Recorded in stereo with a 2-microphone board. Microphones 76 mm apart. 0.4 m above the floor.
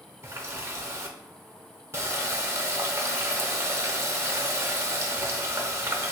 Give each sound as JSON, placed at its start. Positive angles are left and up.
{"t": 0.2, "sound": "a running tap", "side_deg": -35, "distance_m": 0.6}